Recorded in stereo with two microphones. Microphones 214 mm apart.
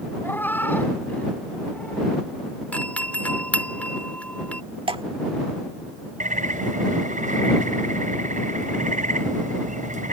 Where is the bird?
35° right (ahead or behind).